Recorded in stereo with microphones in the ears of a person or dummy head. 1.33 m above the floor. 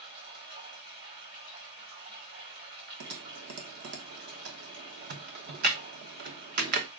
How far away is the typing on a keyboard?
About 1.0 m.